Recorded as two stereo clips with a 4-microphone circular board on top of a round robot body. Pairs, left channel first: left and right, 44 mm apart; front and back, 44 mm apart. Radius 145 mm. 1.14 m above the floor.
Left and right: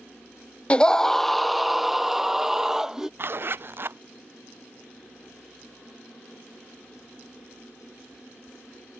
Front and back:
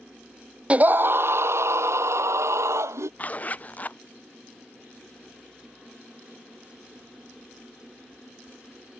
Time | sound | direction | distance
0.7 | a scream | 135° left | ?
3.2 | a zipper | 55° right | ?